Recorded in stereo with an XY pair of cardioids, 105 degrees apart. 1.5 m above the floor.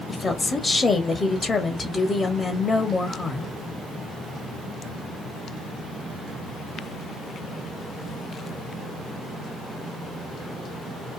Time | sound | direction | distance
0.1 | a woman speaking | 25° left | 0.9 m